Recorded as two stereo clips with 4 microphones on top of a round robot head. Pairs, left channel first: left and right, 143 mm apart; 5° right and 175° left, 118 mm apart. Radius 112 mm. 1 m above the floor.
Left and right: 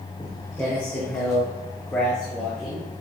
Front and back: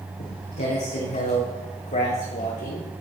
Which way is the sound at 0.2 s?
10° left.